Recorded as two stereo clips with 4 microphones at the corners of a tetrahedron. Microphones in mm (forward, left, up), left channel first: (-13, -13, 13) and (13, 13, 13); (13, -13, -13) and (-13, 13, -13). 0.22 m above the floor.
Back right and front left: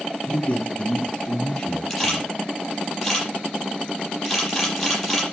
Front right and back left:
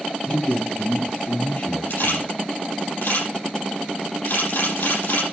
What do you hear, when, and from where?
0.3 s a man speaking: 85° right, 2.0 m; by 2.3 s 55° right, 4.5 m
1.9 s a camera shutter: 50° right, 7.5 m